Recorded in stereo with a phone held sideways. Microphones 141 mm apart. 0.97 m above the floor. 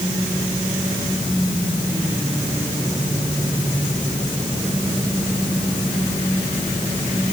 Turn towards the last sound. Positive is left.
No sound to turn to.